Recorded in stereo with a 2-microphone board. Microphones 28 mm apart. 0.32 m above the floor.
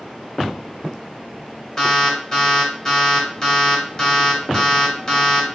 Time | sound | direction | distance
1.8 | an alarm | 30° left (ahead or behind) | 1.6 m